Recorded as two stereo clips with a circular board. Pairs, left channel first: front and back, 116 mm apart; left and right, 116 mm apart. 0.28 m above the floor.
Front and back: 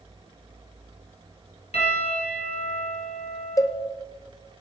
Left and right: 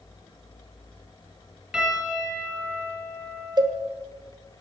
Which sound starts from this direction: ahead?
A piano, at 1.7 s.